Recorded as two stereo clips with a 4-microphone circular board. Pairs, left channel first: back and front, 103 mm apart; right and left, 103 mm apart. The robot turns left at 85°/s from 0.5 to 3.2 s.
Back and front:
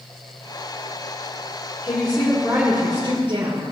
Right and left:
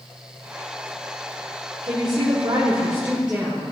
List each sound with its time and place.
1.8 s a woman speaking: 130° left, 1.7 m; by 3.6 s 10° left, 1.7 m